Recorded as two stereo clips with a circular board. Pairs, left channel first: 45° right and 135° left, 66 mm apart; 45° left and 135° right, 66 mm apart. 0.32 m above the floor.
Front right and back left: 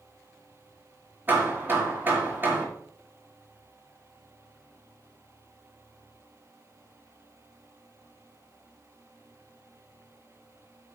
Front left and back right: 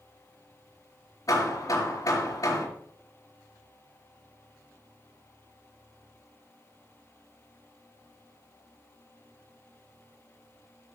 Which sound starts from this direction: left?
Hammering, at 1.3 s.